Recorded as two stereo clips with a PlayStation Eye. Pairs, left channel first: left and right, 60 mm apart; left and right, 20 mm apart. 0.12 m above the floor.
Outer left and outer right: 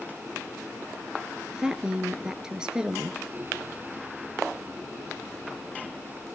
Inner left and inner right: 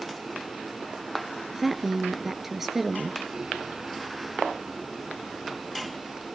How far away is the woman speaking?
About 1.8 m.